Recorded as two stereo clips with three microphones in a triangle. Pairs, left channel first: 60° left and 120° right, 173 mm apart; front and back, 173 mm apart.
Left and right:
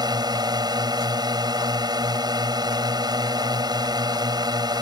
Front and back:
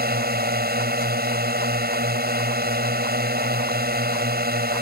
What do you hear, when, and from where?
0.0 s a drone: 175° left